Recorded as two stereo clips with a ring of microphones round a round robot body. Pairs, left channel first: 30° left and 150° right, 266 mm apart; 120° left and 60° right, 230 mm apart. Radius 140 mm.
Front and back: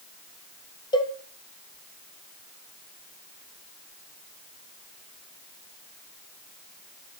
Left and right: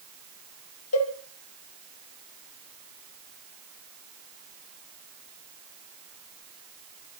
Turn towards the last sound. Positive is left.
turn(degrees=105)